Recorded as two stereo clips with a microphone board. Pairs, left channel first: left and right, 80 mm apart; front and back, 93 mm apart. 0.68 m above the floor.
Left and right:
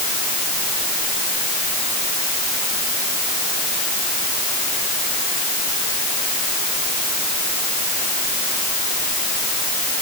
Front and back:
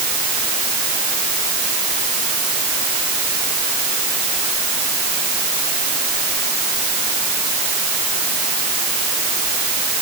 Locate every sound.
Only background noise.